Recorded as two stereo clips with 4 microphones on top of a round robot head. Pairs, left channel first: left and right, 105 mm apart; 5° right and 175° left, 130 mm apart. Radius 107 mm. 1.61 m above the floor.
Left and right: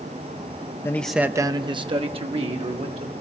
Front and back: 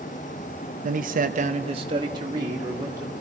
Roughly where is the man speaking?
Behind left.